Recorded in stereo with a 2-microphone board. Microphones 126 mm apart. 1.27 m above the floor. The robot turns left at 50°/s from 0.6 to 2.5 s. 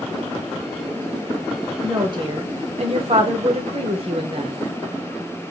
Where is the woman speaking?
25° right, 1.0 m; by 4.5 s 60° right, 1.0 m.